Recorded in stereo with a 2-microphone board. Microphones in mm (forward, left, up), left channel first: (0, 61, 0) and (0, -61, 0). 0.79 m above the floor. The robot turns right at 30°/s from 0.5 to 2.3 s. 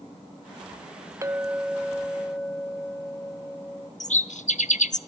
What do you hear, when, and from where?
1.2 s a clink: 30° right, 0.6 m; by 3.9 s 5° left, 0.6 m
4.0 s a bird: 80° left, 1.1 m